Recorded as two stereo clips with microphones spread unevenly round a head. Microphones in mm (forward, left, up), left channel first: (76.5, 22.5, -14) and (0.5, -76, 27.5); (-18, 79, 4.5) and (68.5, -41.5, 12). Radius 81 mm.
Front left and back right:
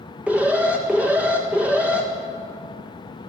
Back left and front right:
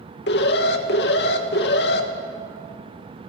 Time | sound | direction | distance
0.3 | an alarm | 145° left | 1.9 m